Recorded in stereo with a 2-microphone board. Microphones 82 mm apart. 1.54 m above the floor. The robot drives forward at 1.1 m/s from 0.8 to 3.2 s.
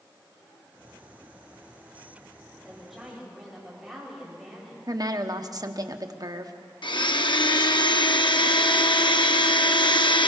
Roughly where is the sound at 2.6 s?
Centre.